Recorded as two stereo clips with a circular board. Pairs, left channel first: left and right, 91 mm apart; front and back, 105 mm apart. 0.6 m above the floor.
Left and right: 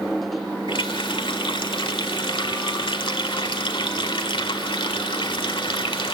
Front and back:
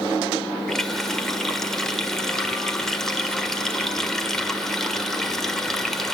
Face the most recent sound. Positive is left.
turn(degrees=85)